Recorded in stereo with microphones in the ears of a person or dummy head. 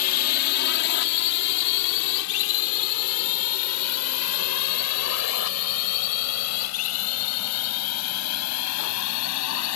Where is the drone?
50° left (ahead or behind); by 9.8 s 70° left (ahead or behind).